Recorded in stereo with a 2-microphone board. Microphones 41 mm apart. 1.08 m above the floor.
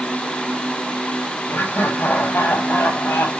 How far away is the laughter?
About 6 m.